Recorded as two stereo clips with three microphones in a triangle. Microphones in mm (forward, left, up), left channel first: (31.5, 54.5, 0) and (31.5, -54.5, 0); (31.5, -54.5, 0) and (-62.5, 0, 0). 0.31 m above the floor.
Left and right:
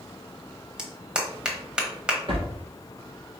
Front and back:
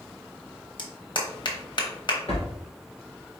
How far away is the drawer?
About 2.0 m.